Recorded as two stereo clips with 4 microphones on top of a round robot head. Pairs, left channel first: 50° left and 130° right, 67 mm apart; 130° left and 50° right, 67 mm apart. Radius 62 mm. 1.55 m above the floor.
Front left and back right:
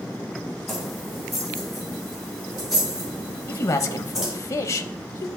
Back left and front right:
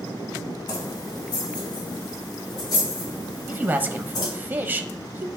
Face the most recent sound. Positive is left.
turn(degrees=10)